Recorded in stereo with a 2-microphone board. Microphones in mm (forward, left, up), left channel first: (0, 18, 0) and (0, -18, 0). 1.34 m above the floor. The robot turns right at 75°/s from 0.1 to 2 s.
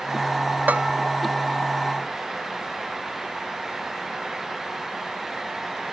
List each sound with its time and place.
0.7 s a bell: 55° right (ahead or behind); by 0.9 s 35° right (ahead or behind)